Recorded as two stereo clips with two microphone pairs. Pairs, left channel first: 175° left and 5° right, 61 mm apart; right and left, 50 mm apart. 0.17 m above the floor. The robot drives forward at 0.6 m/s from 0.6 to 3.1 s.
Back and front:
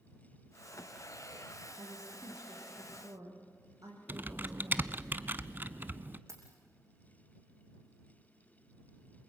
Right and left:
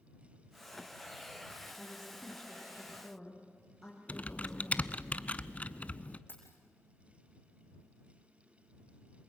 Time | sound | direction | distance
1.8 | a woman speaking | 5° right | 8.5 m
4.1 | typing on a keyboard | 45° right | 0.6 m
6.3 | keys jangling | 45° right | 5.5 m